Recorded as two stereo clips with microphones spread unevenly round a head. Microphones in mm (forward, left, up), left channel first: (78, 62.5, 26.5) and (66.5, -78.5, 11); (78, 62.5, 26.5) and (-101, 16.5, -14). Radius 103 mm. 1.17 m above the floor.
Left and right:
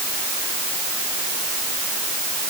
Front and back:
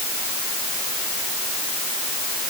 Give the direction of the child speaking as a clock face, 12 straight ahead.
No child speaking in this recording.